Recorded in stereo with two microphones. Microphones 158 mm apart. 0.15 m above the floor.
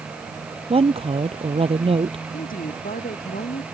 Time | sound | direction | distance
0.7 | a woman speaking | 35° right (ahead or behind) | ?
2.3 | a woman speaking | 60° left (ahead or behind) | ?